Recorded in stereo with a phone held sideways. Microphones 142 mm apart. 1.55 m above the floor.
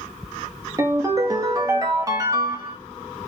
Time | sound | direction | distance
0.8 | a ringtone | 25° right (ahead or behind) | 1.0 m